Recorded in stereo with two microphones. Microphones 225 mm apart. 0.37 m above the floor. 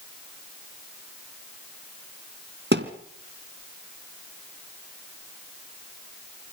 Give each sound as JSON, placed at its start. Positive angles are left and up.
{"t": 2.7, "sound": "a thud", "side_deg": -55, "distance_m": 1.8}